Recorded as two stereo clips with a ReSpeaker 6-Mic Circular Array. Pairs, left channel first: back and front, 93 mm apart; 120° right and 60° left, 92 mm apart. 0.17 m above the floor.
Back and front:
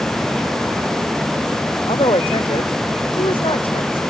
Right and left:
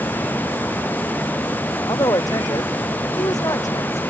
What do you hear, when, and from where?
1.9 s a woman speaking: 165° right; by 4.0 s 170° right